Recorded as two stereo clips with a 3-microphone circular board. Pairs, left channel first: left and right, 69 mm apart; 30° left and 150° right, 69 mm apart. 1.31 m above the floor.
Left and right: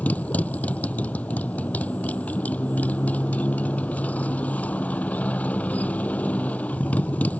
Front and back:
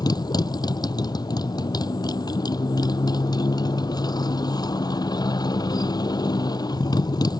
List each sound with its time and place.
0.0 s a motorcycle: 20° left